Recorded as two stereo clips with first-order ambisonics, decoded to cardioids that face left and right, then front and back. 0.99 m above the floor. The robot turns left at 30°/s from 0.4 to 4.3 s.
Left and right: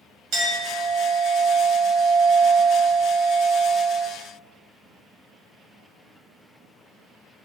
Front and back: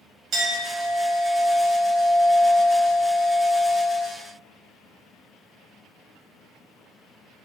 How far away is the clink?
About 1.2 m.